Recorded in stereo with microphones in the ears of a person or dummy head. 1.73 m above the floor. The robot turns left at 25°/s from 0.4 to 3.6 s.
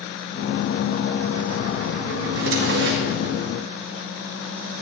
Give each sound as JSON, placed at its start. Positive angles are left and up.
{"t": 2.2, "sound": "a drawer", "side_deg": -70, "distance_m": 2.0}